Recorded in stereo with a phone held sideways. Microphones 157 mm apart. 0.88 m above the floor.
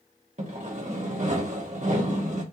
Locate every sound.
0.4 s sawing: 50° right (ahead or behind), 1.2 m